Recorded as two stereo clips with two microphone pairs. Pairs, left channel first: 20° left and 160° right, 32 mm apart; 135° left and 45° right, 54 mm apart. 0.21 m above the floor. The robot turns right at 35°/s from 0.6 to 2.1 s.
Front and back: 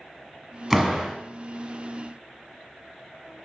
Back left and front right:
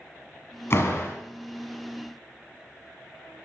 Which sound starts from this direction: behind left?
A door slam, at 0.7 s.